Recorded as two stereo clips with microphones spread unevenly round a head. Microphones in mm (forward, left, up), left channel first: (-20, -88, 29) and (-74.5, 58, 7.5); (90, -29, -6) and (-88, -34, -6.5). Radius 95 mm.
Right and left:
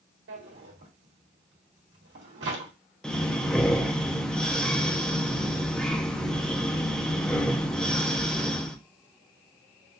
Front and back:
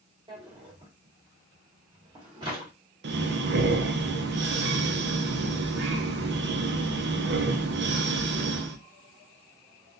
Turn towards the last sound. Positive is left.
turn(degrees=-160)